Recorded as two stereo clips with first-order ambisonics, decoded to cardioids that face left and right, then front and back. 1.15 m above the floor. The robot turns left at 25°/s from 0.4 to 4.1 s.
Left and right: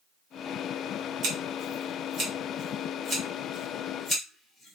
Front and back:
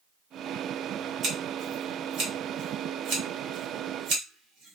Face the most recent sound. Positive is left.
turn(degrees=165)